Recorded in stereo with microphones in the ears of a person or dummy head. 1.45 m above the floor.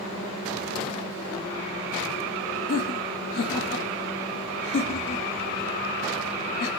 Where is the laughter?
50° left (ahead or behind), 0.6 m.